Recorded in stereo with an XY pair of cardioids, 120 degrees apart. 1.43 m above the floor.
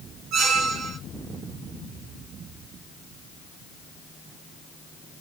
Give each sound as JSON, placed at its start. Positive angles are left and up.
{"t": 0.3, "sound": "a squeak", "azimuth_deg": -65, "distance_m": 2.0}